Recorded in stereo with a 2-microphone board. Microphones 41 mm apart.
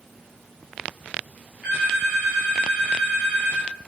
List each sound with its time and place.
1.6 s a phone ringing: 30° right (ahead or behind), 1.9 m